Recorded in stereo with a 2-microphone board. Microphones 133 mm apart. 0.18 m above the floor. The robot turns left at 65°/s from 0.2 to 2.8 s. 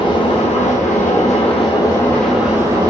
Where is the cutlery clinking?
No cutlery clinking in this recording.